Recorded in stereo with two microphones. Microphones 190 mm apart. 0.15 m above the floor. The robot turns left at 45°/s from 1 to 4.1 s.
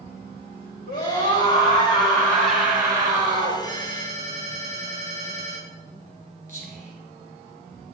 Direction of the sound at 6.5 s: 50° right (ahead or behind).